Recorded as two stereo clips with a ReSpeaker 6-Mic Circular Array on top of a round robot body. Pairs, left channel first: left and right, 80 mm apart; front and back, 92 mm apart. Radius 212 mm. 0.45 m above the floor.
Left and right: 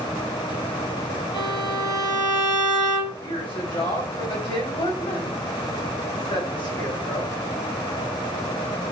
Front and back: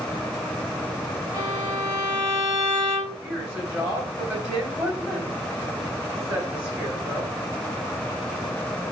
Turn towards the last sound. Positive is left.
turn(degrees=95)